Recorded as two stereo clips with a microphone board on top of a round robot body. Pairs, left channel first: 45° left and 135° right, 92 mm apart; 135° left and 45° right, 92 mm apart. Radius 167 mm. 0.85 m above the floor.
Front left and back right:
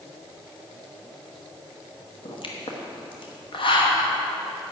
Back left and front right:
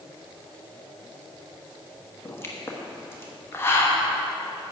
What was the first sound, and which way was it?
A pop, 70° left.